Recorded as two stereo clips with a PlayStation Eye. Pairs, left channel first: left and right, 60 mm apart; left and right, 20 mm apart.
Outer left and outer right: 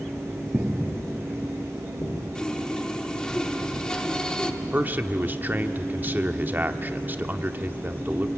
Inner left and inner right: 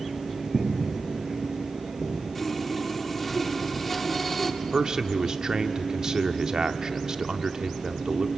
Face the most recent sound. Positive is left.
turn(degrees=-35)  # may be behind; listen again after turning